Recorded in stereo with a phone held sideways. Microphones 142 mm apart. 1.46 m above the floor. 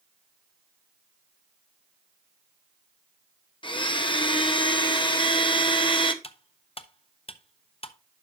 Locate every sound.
3.6 s a blender: 35° left (ahead or behind), 0.8 m
6.2 s cutlery clinking: 40° left (ahead or behind), 0.6 m